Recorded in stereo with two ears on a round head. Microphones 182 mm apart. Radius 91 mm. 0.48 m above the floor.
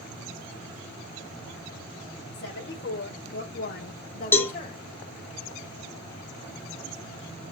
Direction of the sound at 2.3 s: 60° left (ahead or behind).